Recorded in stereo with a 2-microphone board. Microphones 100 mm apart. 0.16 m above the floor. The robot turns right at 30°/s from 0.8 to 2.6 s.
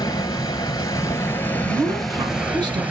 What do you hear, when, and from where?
0.0 s running water: 140° left, 0.9 m; by 2.9 s 165° right, 0.9 m
1.6 s a woman speaking: 40° right (ahead or behind), 1.6 m; by 2.8 s 45° right (ahead or behind), 1.6 m